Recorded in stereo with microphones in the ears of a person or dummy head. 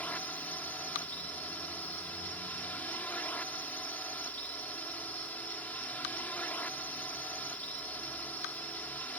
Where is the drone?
10° left (ahead or behind).